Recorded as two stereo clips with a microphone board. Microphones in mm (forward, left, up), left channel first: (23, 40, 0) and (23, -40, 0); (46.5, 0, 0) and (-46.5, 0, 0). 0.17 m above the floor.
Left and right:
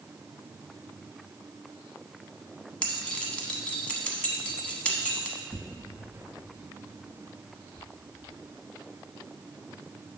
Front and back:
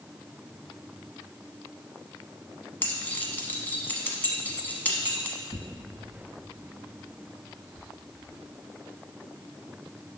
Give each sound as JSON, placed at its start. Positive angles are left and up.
{"t": 2.8, "sound": "keys jangling", "azimuth_deg": 40, "distance_m": 1.0}
{"t": 5.5, "sound": "tearing paper", "azimuth_deg": 30, "distance_m": 0.7}